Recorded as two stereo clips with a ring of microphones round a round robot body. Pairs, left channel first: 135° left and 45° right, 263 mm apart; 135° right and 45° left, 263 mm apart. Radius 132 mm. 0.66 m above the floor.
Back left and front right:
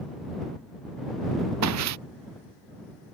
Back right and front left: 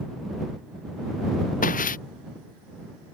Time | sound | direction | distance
1.6 | footsteps | 75° right | ?